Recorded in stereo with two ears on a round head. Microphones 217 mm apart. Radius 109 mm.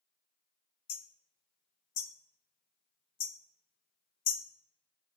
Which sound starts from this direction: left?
Hammering, at 0.9 s.